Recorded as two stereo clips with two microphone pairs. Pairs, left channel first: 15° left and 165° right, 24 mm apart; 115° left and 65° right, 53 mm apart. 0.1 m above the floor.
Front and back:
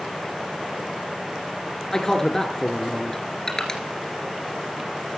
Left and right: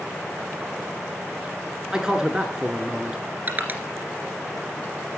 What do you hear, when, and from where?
1.9 s a man speaking: 10° right, 1.1 m
3.5 s crushing: 35° right, 2 m